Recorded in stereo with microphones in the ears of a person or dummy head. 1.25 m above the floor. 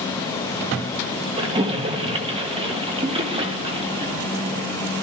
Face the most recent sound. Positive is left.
turn(degrees=-30)  # may be behind; listen again after turning